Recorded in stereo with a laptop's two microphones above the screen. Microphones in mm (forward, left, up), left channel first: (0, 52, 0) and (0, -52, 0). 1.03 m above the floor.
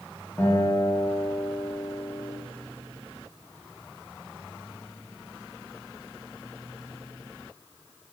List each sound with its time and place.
0.4 s a guitar: 25° left (ahead or behind), 8.5 m